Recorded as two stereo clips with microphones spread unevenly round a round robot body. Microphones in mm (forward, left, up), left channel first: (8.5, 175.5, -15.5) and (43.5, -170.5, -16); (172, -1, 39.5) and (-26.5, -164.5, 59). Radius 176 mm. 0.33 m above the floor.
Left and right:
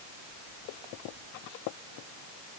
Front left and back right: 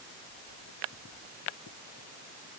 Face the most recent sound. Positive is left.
No sound to turn to.